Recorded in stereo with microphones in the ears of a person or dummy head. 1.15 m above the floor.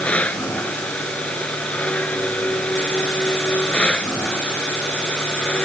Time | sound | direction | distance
0.0 | a machine running | 5° left (ahead or behind) | ?